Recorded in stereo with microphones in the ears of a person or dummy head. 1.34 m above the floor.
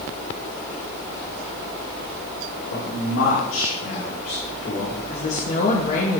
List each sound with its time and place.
2.7 s a man speaking: 80° left, 3.5 m; by 5.0 s 45° left (ahead or behind), 4.5 m
5.1 s a woman speaking: 50° left (ahead or behind), 2 m